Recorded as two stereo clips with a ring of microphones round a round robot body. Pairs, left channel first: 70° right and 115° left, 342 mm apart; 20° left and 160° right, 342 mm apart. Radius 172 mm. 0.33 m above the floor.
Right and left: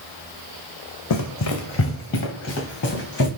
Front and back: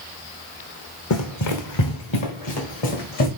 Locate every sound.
1.1 s running footsteps: 25° right, 0.9 m; by 3.3 s 5° right, 3.5 m